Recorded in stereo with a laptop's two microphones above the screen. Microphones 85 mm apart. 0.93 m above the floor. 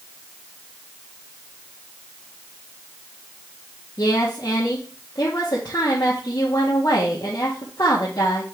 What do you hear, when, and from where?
4.0 s a woman speaking: 55° left (ahead or behind), 1.7 m